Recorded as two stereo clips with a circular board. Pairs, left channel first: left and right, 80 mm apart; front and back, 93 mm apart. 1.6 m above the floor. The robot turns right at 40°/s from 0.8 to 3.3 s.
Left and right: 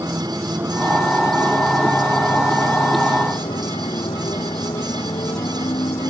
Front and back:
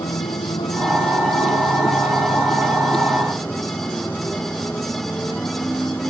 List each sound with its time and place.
0.0 s a motorcycle: 30° right; by 6.1 s 75° left